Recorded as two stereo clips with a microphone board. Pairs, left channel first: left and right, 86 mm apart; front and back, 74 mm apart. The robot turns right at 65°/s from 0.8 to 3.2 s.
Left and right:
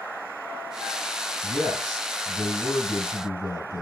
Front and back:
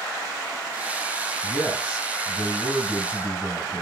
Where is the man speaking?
50° right, 3.5 m; by 3.8 s 65° left, 3.5 m.